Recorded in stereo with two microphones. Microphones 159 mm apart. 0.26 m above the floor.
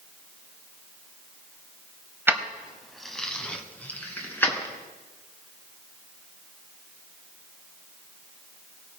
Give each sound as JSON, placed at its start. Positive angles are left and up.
{"t": 2.3, "sound": "keys jangling", "side_deg": -15, "distance_m": 0.9}